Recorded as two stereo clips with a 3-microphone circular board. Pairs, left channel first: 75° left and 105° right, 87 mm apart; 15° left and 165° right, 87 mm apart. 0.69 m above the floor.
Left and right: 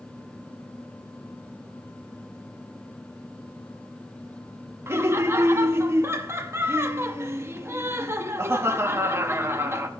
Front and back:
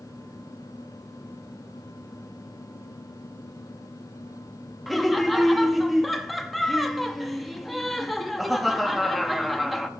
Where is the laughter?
75° right, 0.6 m.